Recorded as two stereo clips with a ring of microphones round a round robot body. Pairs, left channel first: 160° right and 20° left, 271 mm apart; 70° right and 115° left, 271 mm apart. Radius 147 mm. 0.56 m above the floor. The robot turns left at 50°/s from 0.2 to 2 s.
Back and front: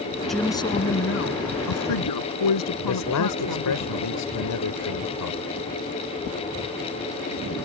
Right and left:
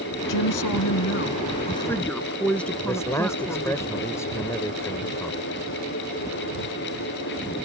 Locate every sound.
0.3 s a woman speaking: 70° right; by 3.8 s 155° right
2.8 s a man speaking: 145° right